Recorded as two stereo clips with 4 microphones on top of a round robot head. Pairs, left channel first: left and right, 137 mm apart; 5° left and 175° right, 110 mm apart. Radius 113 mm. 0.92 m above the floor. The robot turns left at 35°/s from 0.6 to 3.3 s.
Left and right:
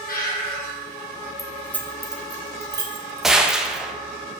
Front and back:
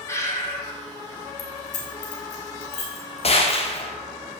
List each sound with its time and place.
0.1 s breathing: 70° left, 3 m; by 0.7 s 65° left, 3 m
1.4 s keys jangling: 25° left, 1.6 m; by 3.9 s 45° right, 1.6 m
3.2 s a gunshot: straight ahead, 1.2 m; by 3.9 s 5° right, 1.2 m